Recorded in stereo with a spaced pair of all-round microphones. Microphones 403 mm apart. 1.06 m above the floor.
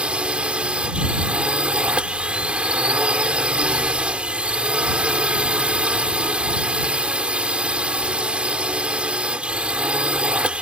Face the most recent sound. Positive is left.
turn(degrees=-5)  # may be behind; listen again after turning